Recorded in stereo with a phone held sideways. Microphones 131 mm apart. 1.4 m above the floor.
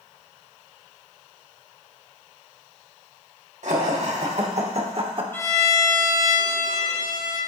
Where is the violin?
15° left (ahead or behind), 1.5 m.